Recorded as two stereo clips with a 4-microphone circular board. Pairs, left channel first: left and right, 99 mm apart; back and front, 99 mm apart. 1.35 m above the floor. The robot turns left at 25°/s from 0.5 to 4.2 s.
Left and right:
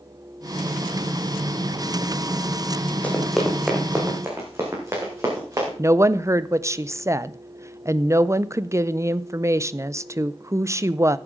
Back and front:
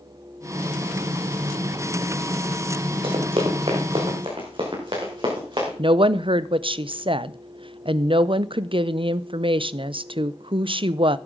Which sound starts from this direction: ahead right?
A woman speaking, at 5.8 s.